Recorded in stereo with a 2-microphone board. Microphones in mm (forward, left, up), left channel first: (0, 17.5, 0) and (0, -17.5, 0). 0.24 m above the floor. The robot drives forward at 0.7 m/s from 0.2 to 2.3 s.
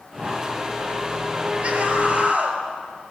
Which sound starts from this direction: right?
A scream, at 1.6 s.